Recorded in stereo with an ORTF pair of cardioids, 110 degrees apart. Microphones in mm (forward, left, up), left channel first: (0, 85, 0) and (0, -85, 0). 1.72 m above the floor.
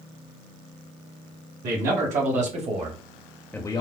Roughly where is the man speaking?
Ahead right.